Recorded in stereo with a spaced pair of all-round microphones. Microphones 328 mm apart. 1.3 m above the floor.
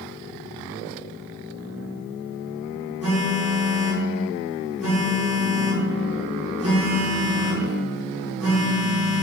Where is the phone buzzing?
45° right (ahead or behind), 1.1 m.